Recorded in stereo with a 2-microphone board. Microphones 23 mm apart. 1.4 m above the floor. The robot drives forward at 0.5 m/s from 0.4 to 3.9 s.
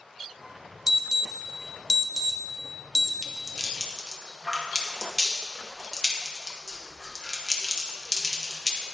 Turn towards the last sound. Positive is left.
turn(degrees=5)  # may be behind; listen again after turning